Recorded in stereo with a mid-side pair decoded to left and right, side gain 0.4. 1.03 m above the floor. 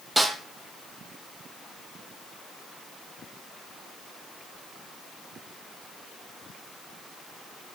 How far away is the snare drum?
About 6.5 m.